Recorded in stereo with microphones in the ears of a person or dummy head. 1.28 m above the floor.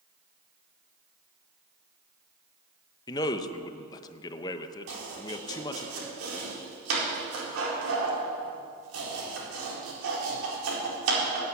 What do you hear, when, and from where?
3.1 s a man speaking: 20° left (ahead or behind), 0.9 m
4.9 s chopping: 80° right, 4.5 m